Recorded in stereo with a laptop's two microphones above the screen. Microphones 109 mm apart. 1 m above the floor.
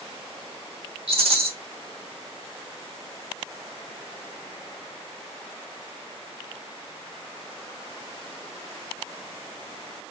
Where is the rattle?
60° right (ahead or behind), 1.1 m.